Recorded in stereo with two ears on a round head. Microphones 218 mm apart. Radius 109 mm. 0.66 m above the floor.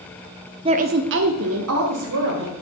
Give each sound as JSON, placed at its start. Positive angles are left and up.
{"t": 0.7, "sound": "a woman speaking", "side_deg": -20, "distance_m": 0.6}